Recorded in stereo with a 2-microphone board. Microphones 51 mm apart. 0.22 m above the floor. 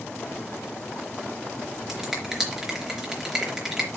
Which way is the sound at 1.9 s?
5° right (ahead or behind).